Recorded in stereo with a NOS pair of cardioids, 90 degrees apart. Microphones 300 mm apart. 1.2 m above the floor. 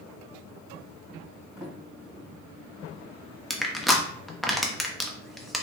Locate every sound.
1.6 s a sliding door: straight ahead, 2 m
3.5 s crushing: straight ahead, 0.9 m